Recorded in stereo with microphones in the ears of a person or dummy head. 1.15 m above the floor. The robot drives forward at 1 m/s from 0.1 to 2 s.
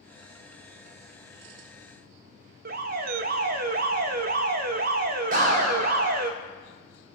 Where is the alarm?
50° right (ahead or behind), 1.0 m.